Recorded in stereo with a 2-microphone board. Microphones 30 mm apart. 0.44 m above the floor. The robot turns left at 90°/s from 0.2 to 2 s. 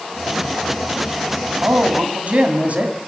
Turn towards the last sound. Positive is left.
turn(degrees=-115)